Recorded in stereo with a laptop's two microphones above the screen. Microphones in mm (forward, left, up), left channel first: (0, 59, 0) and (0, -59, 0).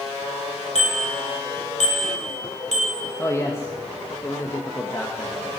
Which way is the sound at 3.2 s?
25° left (ahead or behind).